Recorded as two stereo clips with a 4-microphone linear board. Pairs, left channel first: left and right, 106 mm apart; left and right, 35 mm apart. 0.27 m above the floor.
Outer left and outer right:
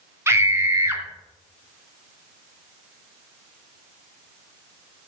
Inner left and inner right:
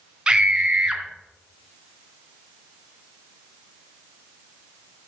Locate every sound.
0.3 s a scream: 25° right (ahead or behind), 2.5 m